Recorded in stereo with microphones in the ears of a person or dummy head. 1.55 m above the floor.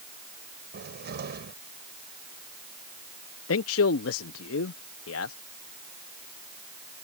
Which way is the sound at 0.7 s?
60° right (ahead or behind).